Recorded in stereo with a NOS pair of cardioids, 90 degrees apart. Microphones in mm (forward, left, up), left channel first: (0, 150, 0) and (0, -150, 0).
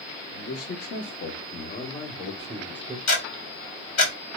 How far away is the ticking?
About 1.5 m.